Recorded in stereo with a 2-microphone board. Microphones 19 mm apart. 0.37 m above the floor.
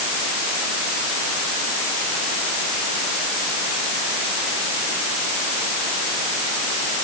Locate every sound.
Only background noise.